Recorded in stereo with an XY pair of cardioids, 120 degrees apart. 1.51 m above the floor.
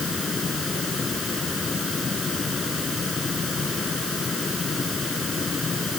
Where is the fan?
30° left.